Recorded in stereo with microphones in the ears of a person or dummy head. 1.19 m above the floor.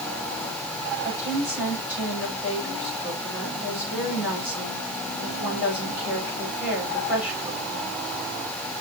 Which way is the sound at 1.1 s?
10° right (ahead or behind).